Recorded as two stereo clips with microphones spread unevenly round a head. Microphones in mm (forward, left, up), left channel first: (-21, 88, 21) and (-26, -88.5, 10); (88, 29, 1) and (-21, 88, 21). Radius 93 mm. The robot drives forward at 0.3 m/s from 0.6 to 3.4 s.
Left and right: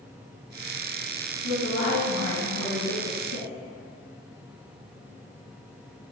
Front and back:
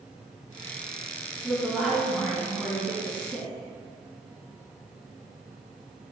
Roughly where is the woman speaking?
Ahead left.